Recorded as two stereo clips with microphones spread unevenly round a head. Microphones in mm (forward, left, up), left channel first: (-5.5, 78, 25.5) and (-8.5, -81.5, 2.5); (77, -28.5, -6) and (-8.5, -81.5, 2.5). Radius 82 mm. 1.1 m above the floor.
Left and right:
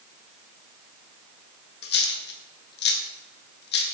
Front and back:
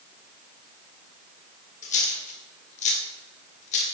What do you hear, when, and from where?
1.8 s a dropped coin: 65° left, 1.8 m